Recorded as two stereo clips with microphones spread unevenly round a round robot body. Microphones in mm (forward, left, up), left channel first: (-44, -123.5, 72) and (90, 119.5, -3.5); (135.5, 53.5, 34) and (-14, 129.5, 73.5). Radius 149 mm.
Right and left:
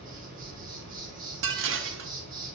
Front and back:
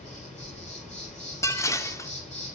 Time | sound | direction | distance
0.0 | an insect | 10° left | 1.7 m
1.4 | dishes clattering | 40° left | 0.6 m